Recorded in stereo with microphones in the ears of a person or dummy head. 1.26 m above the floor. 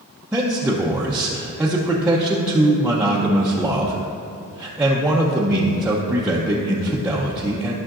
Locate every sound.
0.3 s a man speaking: 5° right (ahead or behind), 0.7 m